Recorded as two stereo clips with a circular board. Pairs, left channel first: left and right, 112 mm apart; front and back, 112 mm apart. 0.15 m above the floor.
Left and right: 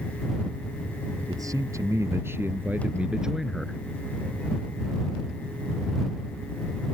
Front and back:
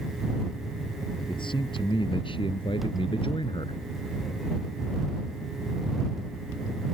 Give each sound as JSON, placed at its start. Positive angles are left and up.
{"t": 1.3, "sound": "a man speaking", "azimuth_deg": -35}